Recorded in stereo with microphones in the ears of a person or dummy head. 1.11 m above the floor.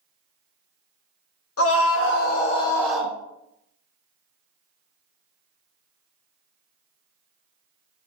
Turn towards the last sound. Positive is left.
turn(degrees=-10)  # may be behind; listen again after turning